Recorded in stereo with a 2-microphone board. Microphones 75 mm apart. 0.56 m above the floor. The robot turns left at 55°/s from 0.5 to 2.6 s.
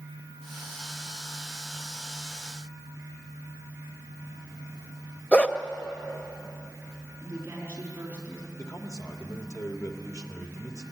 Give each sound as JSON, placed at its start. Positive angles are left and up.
{"t": 5.3, "sound": "a dog barking", "side_deg": 15, "distance_m": 0.8}
{"t": 7.2, "sound": "a woman speaking", "side_deg": -30, "distance_m": 5.0}
{"t": 8.6, "sound": "a man speaking", "side_deg": 50, "distance_m": 1.9}